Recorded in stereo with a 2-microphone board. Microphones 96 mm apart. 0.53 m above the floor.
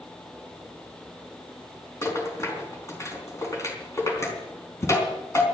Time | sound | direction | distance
2.0 | a rattle | 30° left (ahead or behind) | 4 m